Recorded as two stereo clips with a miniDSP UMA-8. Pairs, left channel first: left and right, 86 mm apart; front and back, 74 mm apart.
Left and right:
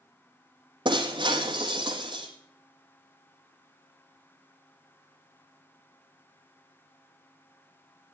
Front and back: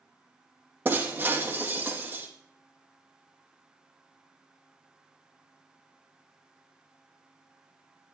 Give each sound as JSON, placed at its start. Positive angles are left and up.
{"t": 0.8, "sound": "breaking glass", "azimuth_deg": -115, "distance_m": 3.0}